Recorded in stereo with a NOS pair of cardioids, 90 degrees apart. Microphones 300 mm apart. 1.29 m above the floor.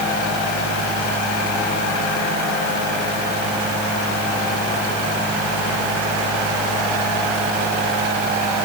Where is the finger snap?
I don't hear a finger snap.